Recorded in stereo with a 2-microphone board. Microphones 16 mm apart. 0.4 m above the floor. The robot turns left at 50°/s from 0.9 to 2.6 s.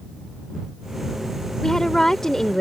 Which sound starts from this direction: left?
A woman speaking, at 1.6 s.